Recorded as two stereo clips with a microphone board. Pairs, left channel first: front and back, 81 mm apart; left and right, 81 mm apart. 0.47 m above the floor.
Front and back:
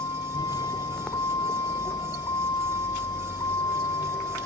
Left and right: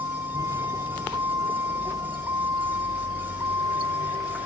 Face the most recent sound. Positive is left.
turn(degrees=-40)